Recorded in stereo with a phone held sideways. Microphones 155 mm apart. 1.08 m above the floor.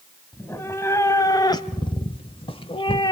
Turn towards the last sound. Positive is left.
turn(degrees=30)  # may be behind; listen again after turning